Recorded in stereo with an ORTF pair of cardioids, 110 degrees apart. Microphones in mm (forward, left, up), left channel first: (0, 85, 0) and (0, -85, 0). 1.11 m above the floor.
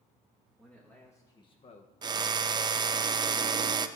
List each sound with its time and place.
0.6 s a man speaking: 5° left, 1.8 m; by 1.9 s 60° left, 1.0 m
2.0 s a drill: 25° right, 0.6 m